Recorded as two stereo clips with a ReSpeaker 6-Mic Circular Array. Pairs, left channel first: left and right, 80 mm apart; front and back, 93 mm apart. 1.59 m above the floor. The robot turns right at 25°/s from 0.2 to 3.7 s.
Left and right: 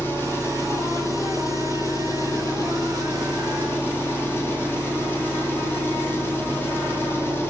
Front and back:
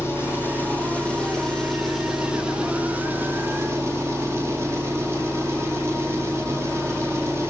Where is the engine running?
45° left, 1.0 m; by 7.5 s 135° left, 1.0 m.